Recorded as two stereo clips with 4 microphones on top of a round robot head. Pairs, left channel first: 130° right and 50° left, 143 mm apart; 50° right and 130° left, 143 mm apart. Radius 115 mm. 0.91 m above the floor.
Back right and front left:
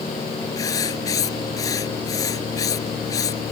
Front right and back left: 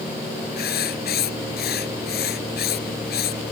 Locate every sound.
0.6 s writing: 60° right